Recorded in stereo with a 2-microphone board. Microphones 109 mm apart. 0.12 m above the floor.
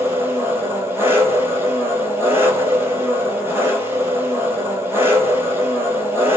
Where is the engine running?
20° right (ahead or behind), 1.1 m.